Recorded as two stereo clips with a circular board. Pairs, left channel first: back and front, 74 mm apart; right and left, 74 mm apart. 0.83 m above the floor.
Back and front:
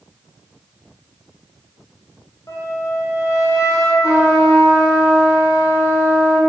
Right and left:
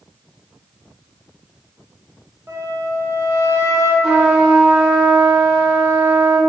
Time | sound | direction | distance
2.5 | a flute | 140° left | 0.9 m
4.0 | a trumpet | 170° left | 1.9 m